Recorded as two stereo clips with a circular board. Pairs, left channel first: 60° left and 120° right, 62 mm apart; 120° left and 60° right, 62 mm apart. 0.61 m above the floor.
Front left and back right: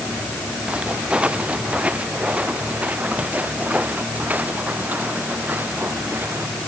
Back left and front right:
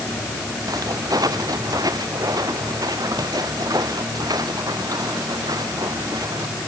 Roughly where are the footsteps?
Ahead right.